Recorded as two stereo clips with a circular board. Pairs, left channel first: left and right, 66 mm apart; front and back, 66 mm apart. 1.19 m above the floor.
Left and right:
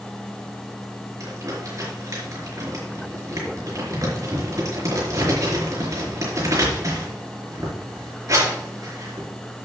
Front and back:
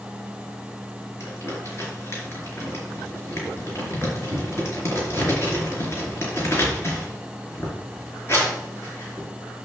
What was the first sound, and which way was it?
Crumpling, 55° right.